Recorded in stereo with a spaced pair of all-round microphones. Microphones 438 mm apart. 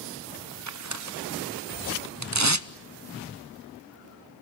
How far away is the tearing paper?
About 0.8 m.